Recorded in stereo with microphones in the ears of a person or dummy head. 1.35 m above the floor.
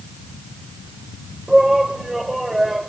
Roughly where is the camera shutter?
No camera shutter in this recording.